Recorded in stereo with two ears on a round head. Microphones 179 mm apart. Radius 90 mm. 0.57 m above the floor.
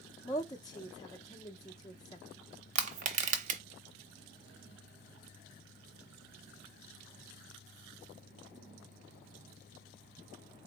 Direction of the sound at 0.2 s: 20° left (ahead or behind).